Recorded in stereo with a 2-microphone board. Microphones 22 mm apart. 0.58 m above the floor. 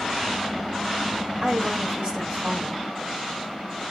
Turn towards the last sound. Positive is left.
turn(degrees=-55)  # may be behind; listen again after turning